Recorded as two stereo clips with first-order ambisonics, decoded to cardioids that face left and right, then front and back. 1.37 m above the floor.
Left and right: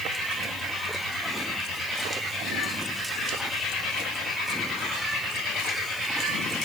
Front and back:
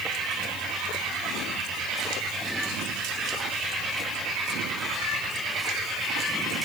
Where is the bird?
No bird in this recording.